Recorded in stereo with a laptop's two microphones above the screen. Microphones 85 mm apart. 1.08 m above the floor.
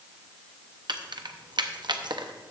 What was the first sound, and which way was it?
Keys jangling, 60° right (ahead or behind).